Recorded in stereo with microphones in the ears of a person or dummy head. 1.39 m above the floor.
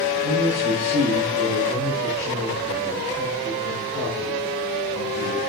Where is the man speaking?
55° right (ahead or behind), 3 m.